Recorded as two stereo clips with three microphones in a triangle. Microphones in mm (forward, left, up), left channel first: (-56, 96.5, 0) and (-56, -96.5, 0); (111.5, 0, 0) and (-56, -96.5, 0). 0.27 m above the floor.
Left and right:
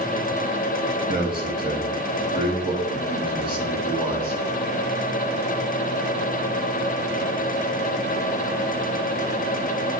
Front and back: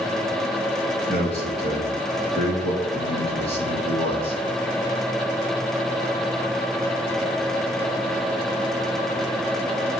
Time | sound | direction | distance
1.1 | a man speaking | 30° right | 2.5 m